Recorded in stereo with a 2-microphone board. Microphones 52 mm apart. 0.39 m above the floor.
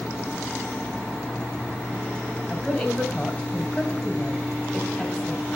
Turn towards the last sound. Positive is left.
turn(degrees=5)  # may be behind; listen again after turning